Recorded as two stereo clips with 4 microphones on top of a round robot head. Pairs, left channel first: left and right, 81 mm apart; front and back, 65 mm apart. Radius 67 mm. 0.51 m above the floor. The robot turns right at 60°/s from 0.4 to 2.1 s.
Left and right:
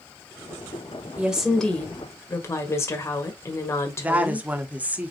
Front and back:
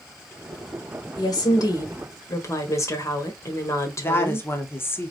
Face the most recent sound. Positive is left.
turn(degrees=-30)